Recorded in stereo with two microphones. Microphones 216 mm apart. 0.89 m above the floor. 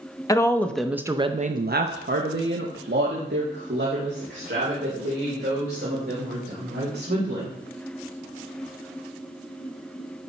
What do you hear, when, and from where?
0.3 s a woman speaking: 15° left (ahead or behind), 0.9 m; by 7.6 s 50° right (ahead or behind), 4.5 m